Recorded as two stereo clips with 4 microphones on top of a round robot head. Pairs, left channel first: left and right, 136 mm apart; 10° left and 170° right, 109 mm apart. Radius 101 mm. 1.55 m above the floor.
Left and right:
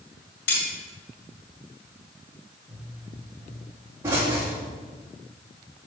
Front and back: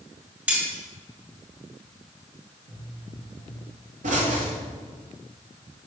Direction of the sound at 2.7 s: 165° right.